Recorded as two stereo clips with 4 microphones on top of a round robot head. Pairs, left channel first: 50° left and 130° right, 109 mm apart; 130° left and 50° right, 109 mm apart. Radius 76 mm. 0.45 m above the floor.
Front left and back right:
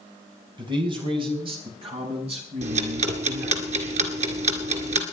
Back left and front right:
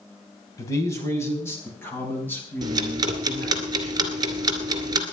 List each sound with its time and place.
0.6 s a man speaking: 170° right, 4.5 m; by 3.6 s 155° right, 7.5 m
2.6 s ticking: 105° right, 2 m